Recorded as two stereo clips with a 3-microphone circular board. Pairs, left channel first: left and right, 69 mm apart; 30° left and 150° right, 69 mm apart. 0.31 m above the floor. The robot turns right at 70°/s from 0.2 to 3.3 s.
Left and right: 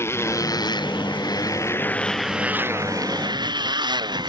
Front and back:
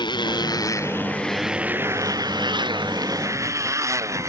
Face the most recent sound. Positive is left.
turn(degrees=-100)